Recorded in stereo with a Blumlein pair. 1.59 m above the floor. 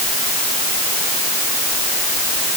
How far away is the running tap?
I don't hear a running tap.